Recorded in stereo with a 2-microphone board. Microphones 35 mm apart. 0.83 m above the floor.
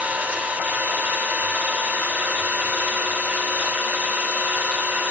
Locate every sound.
0.0 s an engine running: 65° right (ahead or behind), 1.0 m